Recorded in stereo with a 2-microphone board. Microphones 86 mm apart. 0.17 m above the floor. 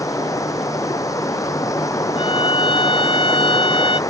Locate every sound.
0.0 s running water: 40° left (ahead or behind)
2.2 s a violin: 80° left